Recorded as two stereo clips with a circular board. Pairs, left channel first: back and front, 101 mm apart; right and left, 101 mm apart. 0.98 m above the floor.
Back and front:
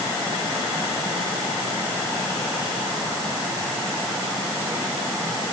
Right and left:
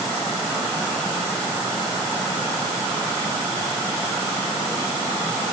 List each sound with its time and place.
Only background noise.